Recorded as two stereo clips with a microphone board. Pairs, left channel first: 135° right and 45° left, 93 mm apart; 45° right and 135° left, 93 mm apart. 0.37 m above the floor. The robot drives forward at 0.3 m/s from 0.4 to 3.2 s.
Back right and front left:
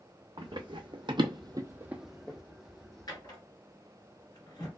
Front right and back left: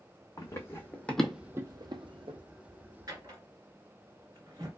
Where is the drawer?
Straight behind, 1.5 m.